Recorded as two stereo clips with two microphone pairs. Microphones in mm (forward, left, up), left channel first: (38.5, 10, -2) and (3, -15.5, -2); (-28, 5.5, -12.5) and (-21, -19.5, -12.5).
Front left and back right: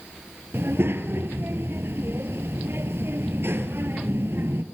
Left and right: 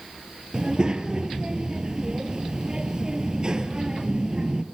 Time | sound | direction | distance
0.5 | a child speaking | 135° right | 2 m